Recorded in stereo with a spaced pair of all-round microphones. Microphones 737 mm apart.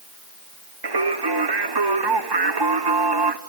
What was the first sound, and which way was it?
Singing, 35° right (ahead or behind).